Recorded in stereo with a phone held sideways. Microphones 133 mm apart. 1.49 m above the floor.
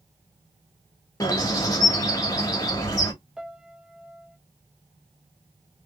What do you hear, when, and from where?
1.2 s a bird: 25° left (ahead or behind), 1.5 m
3.4 s a piano: 5° right (ahead or behind), 0.6 m